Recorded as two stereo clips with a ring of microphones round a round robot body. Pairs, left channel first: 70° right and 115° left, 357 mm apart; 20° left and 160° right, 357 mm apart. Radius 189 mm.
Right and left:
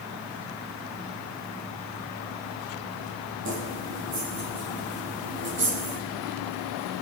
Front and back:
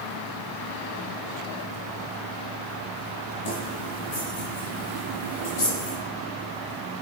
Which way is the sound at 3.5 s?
55° left.